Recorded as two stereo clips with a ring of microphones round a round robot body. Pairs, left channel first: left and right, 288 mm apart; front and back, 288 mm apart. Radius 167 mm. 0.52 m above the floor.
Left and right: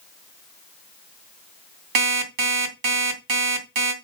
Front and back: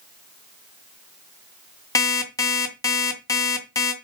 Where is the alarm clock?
80° right, 2.5 m.